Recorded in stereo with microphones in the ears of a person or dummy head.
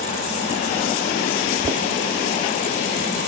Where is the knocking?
20° right (ahead or behind).